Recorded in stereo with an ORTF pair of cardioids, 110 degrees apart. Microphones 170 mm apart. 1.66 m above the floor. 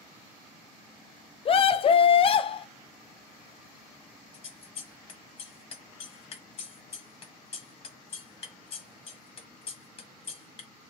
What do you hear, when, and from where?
1.4 s a scream: 35° left, 0.6 m
4.3 s scissors: 35° left, 1.1 m